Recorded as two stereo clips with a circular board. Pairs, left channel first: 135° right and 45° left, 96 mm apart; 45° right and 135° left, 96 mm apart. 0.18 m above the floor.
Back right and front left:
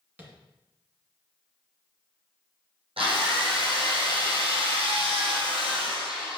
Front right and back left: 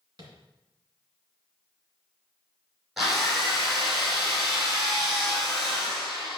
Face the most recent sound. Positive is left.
turn(degrees=50)